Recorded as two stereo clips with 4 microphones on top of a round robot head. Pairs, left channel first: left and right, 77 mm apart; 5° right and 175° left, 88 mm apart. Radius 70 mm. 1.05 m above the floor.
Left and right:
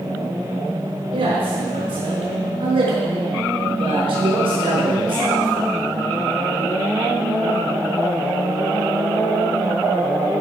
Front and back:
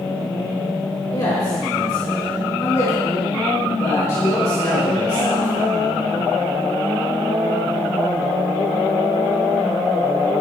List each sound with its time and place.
1.1 s a man speaking: 65° right, 5 m